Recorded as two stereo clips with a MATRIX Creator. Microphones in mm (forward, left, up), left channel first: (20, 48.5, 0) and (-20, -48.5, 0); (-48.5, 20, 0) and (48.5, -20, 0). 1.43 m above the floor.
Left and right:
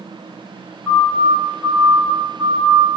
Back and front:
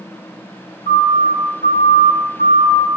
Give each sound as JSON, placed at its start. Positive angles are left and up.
{"t": 0.9, "sound": "a siren", "azimuth_deg": 155, "distance_m": 4.0}